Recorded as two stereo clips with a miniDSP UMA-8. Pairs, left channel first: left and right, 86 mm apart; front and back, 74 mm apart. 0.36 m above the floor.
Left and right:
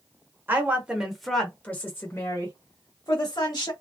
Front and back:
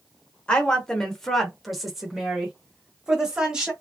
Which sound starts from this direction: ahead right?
A woman speaking, at 0.5 s.